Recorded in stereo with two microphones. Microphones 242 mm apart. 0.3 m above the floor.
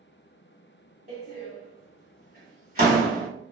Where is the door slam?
35° right (ahead or behind), 1.2 m.